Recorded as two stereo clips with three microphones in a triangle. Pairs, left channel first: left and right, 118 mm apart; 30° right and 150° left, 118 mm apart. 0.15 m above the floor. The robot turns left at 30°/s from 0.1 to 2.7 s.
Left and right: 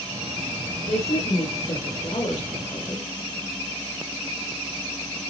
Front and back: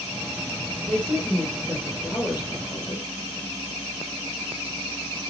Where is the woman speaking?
80° left, 3 m; by 3.1 s 25° left, 3 m.